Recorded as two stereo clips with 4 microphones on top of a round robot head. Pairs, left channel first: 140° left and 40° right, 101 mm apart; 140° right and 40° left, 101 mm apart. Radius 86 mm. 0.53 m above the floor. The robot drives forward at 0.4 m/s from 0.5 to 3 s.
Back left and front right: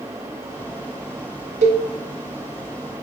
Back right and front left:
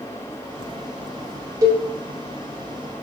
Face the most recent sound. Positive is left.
turn(degrees=-45)